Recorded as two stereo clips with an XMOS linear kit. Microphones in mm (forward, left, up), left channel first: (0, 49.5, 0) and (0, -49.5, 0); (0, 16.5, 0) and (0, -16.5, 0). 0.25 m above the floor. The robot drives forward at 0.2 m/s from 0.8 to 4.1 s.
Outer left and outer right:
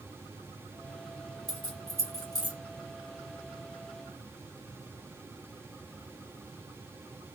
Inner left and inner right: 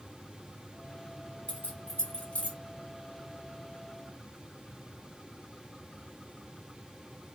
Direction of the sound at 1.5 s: 35° left (ahead or behind).